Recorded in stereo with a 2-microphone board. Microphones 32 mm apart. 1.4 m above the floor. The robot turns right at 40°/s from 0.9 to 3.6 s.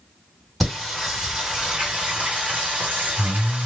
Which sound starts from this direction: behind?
Singing, at 0.6 s.